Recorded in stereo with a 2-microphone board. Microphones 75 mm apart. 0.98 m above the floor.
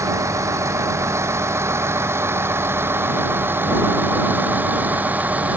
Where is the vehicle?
40° right (ahead or behind); by 5.6 s 20° right (ahead or behind).